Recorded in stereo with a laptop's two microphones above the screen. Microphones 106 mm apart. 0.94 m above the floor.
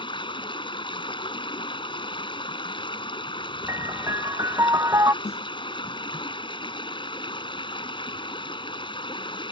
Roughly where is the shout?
No shout in this recording.